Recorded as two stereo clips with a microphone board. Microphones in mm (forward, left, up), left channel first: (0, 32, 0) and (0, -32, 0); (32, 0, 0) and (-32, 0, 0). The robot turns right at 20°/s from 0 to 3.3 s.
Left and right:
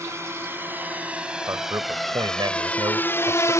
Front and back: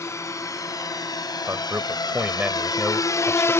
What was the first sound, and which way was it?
A drone, 45° right.